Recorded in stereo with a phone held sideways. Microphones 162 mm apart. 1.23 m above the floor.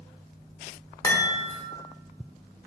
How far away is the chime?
About 0.8 m.